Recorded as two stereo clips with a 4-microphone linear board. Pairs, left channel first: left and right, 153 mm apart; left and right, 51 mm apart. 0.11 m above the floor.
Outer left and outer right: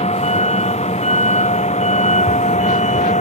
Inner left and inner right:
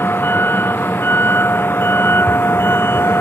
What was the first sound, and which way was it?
A vehicle, 45° left (ahead or behind).